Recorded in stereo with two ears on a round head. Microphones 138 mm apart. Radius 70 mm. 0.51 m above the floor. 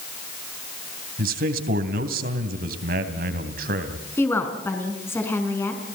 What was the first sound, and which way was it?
A man speaking, 65° right (ahead or behind).